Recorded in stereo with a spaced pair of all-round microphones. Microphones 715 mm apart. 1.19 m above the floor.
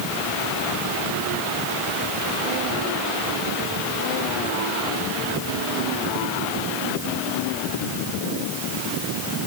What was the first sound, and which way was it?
Only background noise.